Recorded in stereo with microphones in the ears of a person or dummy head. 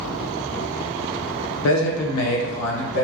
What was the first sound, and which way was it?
A man speaking, 70° left (ahead or behind).